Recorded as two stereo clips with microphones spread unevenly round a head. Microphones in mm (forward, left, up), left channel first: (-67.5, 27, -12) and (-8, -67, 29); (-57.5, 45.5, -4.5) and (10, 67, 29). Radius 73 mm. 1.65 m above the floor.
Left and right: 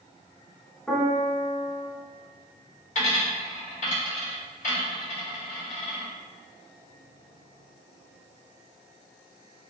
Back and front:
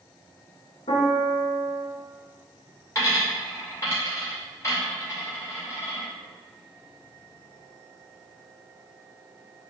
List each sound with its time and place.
0.9 s a piano: 150° right, 1.1 m
3.0 s a dropped coin: 140° left, 2.0 m